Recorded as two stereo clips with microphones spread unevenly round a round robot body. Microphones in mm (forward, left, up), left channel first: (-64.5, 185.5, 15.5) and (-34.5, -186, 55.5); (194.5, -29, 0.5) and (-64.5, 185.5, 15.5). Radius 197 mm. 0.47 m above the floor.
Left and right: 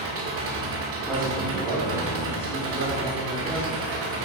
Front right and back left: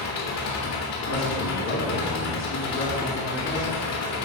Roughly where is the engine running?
Ahead right.